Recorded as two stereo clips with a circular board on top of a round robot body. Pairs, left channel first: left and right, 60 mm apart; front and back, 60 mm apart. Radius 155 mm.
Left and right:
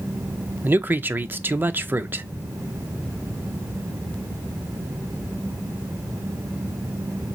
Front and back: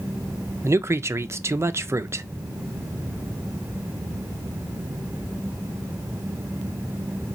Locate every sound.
0.6 s a man speaking: 145° right, 0.5 m